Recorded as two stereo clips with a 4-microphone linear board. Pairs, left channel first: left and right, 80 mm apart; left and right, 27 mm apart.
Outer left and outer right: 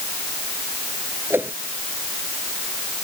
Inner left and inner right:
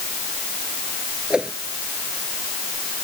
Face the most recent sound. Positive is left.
turn(degrees=-30)  # may be behind; listen again after turning